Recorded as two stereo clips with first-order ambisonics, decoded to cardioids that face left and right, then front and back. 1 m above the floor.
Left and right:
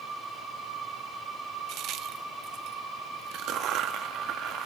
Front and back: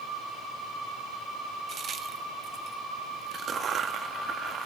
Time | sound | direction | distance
1.7 | a crack | 120° right | 0.5 m